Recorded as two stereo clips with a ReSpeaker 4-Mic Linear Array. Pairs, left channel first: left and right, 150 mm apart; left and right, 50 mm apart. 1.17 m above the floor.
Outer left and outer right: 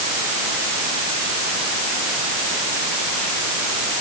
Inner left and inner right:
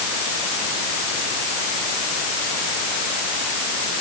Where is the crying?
I don't hear crying.